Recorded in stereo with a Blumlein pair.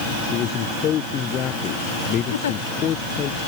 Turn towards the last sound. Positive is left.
turn(degrees=65)